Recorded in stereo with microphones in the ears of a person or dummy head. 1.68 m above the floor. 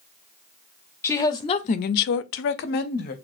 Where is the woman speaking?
15° left (ahead or behind), 0.7 m; by 3.1 s 45° left (ahead or behind), 0.9 m.